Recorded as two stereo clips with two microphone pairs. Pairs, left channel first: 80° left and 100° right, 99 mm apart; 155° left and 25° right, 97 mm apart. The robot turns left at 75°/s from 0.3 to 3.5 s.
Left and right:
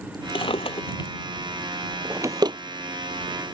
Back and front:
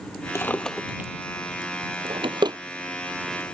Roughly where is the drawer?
Left.